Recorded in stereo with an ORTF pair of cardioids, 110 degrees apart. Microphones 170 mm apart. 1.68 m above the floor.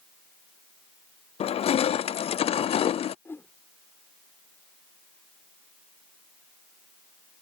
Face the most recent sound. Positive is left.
turn(degrees=15)